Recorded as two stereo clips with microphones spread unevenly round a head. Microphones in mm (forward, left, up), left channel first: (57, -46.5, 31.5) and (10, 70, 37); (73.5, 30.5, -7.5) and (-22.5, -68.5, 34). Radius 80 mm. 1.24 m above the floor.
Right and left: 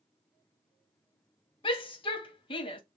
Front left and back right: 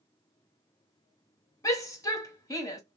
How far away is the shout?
About 1.4 m.